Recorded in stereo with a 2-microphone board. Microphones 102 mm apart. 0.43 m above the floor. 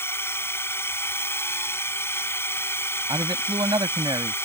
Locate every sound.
0.0 s a drone: 25° left (ahead or behind)
3.1 s a man speaking: 45° right (ahead or behind)